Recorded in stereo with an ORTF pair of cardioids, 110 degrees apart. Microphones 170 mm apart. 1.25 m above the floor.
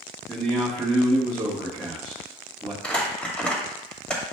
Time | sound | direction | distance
0.3 | a man speaking | 10° right | 1.2 m
2.8 | crumpling | 5° left | 1.6 m